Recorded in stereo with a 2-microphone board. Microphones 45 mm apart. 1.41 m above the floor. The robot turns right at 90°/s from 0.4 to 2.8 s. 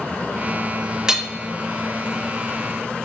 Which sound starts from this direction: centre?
Hammering, at 1.1 s.